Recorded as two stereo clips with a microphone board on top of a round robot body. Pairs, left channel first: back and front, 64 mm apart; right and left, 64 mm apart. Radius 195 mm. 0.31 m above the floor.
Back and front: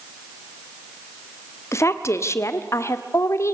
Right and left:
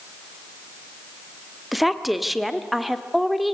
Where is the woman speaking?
Straight behind, 1.8 m.